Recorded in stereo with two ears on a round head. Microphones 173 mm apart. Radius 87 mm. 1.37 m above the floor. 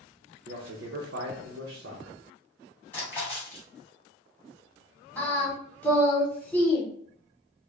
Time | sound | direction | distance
0.5 | a man speaking | 65° right (ahead or behind) | 0.8 m
2.9 | a splash | 10° left (ahead or behind) | 1.4 m
5.2 | singing | 10° left (ahead or behind) | 1.0 m